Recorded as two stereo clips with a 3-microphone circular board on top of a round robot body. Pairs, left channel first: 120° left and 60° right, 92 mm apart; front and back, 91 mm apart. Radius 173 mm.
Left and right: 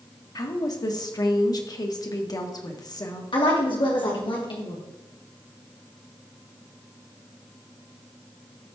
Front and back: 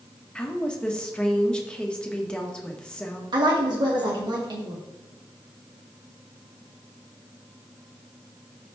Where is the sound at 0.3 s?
80° left, 1.7 m.